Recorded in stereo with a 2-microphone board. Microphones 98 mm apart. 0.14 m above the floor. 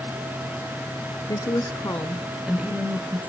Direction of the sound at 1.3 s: 50° left (ahead or behind).